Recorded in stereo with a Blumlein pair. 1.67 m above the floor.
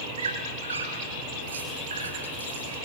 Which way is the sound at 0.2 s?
65° right.